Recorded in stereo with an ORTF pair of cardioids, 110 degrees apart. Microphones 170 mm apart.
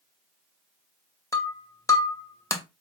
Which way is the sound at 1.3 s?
20° left.